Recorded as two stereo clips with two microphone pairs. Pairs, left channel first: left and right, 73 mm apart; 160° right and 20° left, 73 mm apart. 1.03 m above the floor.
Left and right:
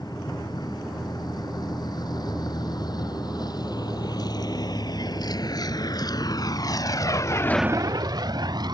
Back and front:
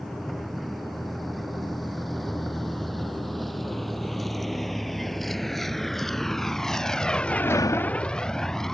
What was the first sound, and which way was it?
A vehicle, 110° left.